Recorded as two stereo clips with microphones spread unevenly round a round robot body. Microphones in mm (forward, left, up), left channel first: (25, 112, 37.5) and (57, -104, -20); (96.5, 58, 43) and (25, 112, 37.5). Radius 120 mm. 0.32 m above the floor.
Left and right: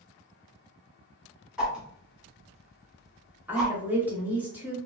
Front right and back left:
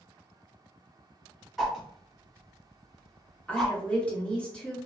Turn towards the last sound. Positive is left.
turn(degrees=-110)